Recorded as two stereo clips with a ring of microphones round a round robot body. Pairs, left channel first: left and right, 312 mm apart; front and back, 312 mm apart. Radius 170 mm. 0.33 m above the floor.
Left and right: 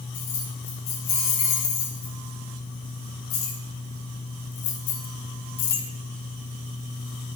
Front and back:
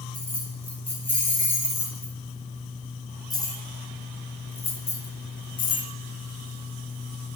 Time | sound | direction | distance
0.1 | keys jangling | 85° left | 4.5 m